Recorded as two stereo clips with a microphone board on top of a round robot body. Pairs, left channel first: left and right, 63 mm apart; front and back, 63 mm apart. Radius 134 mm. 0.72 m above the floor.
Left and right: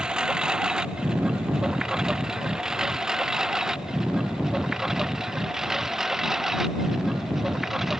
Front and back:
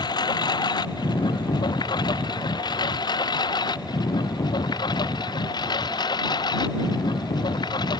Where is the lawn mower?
10° right; by 8.0 s 5° right.